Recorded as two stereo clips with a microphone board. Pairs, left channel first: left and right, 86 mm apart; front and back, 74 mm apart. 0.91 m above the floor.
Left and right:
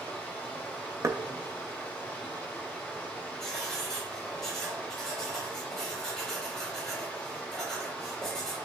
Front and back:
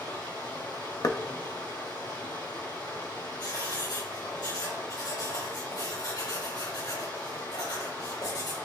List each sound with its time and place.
0.0 s running water: 20° left, 2 m
1.0 s knocking: 35° right, 0.7 m
3.4 s writing: 5° left, 4 m